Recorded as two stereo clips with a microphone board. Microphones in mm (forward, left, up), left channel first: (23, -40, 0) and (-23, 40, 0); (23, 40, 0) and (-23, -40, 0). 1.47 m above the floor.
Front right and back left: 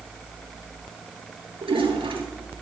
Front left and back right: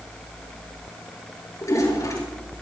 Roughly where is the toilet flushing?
Behind left.